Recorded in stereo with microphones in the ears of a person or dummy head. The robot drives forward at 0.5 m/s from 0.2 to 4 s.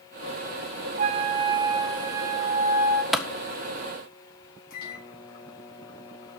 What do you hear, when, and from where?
1.0 s a flute: 40° right (ahead or behind), 0.6 m; by 3.0 s 15° right (ahead or behind), 1.5 m
3.1 s a clap: centre (ahead or behind), 0.8 m
4.7 s a microwave: 60° left (ahead or behind), 3.5 m